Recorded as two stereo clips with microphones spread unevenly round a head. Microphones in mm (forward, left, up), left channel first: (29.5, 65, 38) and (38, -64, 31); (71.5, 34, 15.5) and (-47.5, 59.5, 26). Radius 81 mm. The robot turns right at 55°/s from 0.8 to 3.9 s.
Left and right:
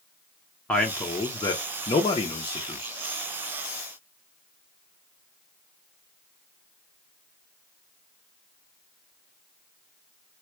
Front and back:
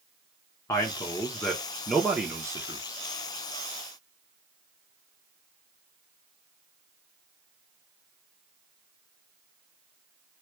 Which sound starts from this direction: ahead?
A man speaking, at 0.7 s.